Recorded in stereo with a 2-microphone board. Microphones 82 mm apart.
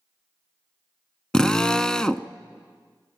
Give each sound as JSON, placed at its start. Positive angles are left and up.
{"t": 1.3, "sound": "a drill", "side_deg": 10, "distance_m": 0.7}